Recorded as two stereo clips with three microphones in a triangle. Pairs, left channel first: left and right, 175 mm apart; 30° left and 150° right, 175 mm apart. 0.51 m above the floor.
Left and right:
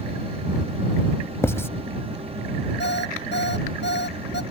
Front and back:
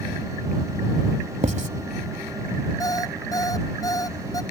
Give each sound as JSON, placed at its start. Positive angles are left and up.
{"t": 1.4, "sound": "writing", "azimuth_deg": 165}
{"t": 2.8, "sound": "an alarm clock", "azimuth_deg": 100}